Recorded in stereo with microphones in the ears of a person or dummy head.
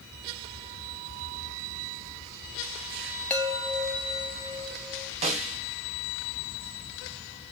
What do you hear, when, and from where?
3.3 s a chime: 10° left (ahead or behind), 0.7 m
5.2 s a snare drum: 35° right (ahead or behind), 1.1 m